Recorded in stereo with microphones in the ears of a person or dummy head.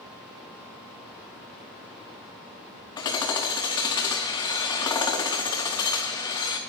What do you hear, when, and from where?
3.0 s hammering: 20° left (ahead or behind), 0.5 m